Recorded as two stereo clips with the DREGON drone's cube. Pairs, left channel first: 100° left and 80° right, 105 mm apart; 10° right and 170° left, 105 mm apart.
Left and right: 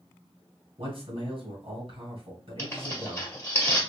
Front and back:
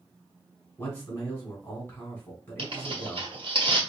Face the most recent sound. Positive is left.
turn(degrees=160)